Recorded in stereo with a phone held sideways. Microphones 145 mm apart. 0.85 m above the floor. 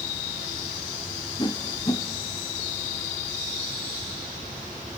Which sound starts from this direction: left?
A whoosh, at 1.4 s.